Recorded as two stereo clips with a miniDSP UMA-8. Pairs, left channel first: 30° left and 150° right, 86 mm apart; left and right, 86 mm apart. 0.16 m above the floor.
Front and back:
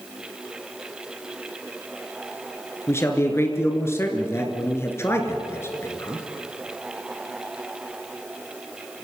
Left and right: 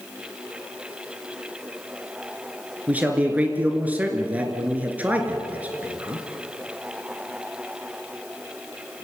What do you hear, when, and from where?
2.9 s a man speaking: 25° right, 3 m